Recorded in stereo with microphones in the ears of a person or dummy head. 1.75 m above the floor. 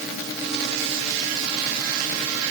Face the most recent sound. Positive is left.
No sound to turn to.